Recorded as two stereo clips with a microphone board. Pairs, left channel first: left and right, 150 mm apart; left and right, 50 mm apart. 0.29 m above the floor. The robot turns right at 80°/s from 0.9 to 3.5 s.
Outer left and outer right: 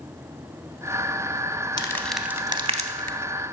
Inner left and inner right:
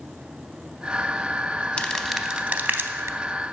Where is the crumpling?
30° left (ahead or behind), 0.5 m; by 3.2 s 70° right (ahead or behind), 0.5 m.